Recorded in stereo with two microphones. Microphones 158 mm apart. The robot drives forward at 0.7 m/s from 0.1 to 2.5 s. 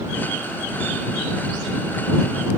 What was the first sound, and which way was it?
Only background noise.